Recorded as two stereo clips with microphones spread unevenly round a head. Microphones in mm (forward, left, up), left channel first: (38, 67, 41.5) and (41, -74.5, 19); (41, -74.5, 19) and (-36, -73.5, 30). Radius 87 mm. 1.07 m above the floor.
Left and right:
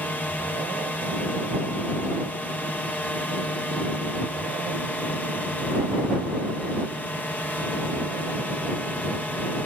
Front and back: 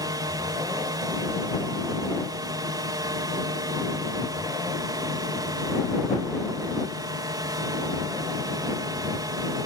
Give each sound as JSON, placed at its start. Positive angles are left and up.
{"t": 0.0, "sound": "a drone", "azimuth_deg": 175}